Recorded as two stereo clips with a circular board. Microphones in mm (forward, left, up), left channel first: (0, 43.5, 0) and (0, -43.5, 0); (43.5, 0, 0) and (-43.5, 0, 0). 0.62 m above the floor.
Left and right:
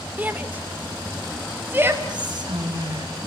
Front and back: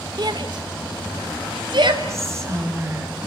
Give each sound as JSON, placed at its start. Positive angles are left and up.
{"t": 0.2, "sound": "a shout", "azimuth_deg": -160, "distance_m": 1.9}
{"t": 2.1, "sound": "whispering", "azimuth_deg": -125, "distance_m": 5.0}